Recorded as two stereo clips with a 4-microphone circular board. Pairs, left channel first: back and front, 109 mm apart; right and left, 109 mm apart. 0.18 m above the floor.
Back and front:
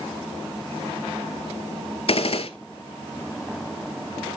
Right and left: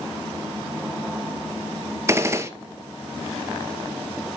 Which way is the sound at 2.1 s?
155° left.